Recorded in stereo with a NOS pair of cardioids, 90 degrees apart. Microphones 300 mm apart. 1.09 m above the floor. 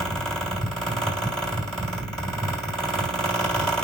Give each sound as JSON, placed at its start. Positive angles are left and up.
{"t": 0.0, "sound": "a fan", "azimuth_deg": 0, "distance_m": 1.8}